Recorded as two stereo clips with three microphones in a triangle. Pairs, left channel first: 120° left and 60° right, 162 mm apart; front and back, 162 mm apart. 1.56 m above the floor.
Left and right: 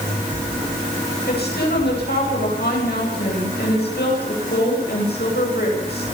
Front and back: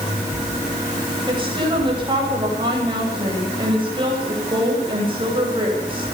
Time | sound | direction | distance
1.3 | a woman speaking | 120° left | 10 m